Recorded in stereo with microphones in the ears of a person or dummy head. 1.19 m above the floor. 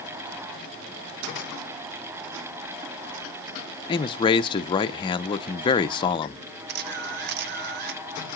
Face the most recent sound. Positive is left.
turn(degrees=-60)  # may be behind; listen again after turning